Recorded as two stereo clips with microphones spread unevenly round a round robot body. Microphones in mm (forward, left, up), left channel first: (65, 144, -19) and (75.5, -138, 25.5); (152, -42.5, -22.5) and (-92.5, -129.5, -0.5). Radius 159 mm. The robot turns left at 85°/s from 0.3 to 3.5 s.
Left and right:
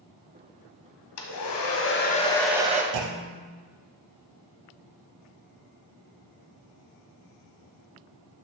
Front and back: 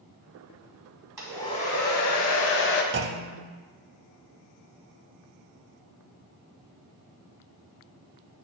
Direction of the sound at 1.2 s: 115° left.